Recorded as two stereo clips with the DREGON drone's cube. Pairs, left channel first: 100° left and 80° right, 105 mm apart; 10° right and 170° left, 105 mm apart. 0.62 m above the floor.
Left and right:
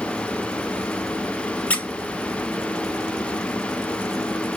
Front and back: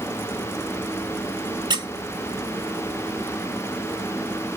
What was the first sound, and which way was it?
A squeak, 175° left.